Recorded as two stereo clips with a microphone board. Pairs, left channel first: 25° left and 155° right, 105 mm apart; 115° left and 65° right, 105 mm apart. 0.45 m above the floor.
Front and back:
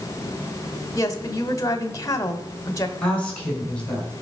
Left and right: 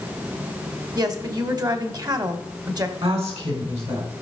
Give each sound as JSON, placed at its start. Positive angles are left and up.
{"t": 0.9, "sound": "a woman speaking", "azimuth_deg": -25, "distance_m": 1.5}
{"t": 3.0, "sound": "a woman speaking", "azimuth_deg": -55, "distance_m": 5.5}